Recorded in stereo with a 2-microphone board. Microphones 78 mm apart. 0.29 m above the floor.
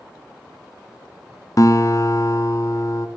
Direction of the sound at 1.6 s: 45° left (ahead or behind).